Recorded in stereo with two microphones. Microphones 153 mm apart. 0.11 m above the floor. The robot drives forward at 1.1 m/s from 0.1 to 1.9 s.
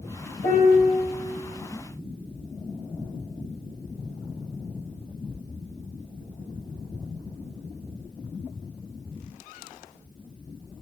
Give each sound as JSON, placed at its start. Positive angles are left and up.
{"t": 0.4, "sound": "a piano", "side_deg": 65, "distance_m": 2.0}